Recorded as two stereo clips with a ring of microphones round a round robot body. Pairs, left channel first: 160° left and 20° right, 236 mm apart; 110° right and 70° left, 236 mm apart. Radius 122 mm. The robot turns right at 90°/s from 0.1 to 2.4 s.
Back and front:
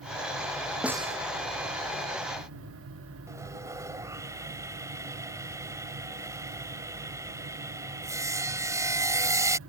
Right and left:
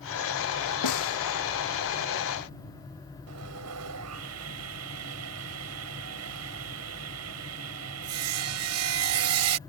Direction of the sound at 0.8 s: 110° right.